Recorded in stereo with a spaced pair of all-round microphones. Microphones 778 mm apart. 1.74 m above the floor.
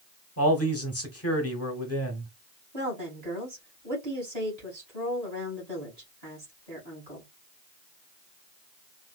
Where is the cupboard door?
I don't hear a cupboard door.